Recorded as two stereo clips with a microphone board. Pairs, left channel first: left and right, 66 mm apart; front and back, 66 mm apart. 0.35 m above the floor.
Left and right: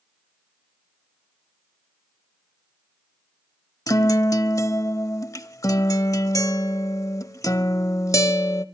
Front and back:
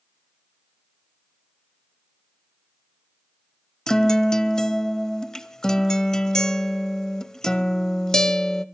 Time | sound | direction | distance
3.9 | a guitar | 80° left | 0.7 m